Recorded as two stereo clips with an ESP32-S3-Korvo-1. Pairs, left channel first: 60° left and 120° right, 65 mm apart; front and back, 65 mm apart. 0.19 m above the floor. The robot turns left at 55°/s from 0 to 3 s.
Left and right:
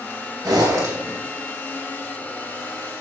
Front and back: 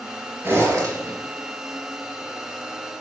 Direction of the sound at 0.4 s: 120° right.